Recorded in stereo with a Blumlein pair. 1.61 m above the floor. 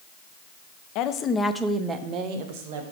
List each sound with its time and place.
0.9 s a woman speaking: 40° left, 0.6 m; by 2.8 s 50° right, 1.1 m